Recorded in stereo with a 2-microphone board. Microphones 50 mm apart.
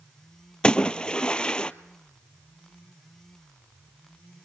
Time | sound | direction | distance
0.6 | a splash | 20° left (ahead or behind) | 0.6 m